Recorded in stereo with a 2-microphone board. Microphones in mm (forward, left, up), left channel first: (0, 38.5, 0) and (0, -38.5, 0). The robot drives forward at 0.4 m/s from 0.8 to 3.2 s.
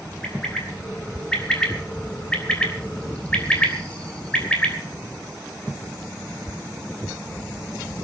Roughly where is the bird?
Centre.